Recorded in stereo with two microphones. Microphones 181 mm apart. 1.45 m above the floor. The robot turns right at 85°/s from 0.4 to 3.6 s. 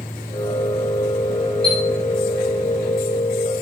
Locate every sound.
1.6 s a chime: 25° right (ahead or behind), 2 m; by 1.8 s 35° right (ahead or behind), 2 m